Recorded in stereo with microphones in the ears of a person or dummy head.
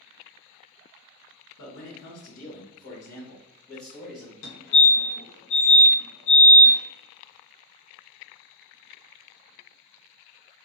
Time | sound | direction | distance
1.6 | a man speaking | 65° left (ahead or behind) | 1.2 m
4.4 | a fire alarm | 45° left (ahead or behind) | 1.7 m